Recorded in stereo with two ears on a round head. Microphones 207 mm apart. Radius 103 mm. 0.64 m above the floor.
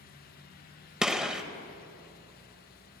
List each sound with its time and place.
1.0 s a gunshot: 5° right (ahead or behind), 0.8 m